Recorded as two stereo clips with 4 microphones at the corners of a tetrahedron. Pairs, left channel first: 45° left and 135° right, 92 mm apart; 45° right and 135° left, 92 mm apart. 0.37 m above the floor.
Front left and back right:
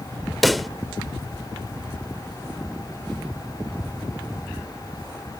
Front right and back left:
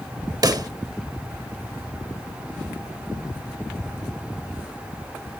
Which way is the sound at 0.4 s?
135° left.